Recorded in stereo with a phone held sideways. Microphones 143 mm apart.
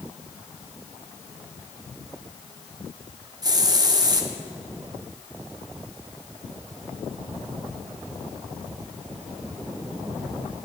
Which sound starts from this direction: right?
A hiss, at 3.4 s.